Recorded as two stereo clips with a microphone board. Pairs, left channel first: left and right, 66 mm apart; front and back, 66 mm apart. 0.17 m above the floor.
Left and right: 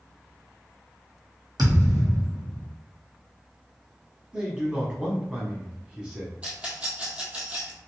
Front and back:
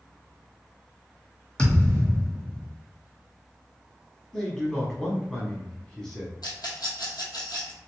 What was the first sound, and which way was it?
A thud, 75° right.